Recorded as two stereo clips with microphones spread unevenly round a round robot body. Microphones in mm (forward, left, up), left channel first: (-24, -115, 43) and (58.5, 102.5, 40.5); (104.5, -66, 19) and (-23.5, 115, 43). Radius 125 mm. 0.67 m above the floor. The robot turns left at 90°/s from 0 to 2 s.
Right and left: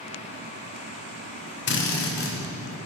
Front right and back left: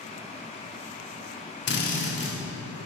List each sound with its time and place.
1.7 s a drill: 80° right, 1.5 m; by 2.4 s 110° right, 1.5 m